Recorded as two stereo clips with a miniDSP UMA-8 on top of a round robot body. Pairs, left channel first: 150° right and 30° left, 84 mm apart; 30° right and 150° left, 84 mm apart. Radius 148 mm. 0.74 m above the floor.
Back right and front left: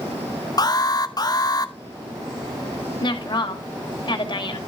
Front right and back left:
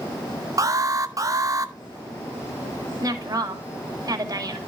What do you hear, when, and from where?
0.6 s an alarm: 170° right, 1.1 m
3.0 s a woman speaking: 165° right, 2.5 m